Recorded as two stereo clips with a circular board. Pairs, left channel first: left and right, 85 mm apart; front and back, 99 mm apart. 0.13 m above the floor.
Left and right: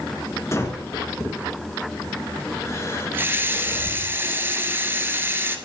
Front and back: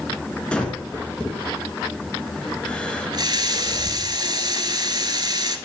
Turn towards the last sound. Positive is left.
turn(degrees=-150)